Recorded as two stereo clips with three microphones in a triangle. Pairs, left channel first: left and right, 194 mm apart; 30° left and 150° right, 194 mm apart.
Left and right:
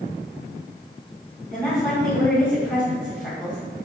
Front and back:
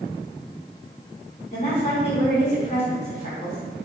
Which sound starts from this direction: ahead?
A woman speaking, at 1.5 s.